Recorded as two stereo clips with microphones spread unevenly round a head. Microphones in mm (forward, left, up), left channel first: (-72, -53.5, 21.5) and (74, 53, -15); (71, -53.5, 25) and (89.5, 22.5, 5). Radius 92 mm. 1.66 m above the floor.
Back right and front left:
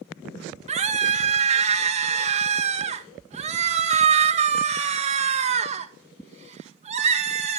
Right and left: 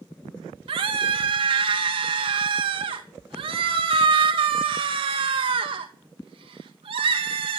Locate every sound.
0.7 s a scream: 95° left, 2 m